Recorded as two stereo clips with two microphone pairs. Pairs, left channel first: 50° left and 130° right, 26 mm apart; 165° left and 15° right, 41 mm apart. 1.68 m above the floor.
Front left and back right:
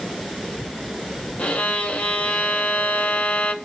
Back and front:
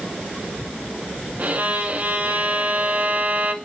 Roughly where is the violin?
Ahead left.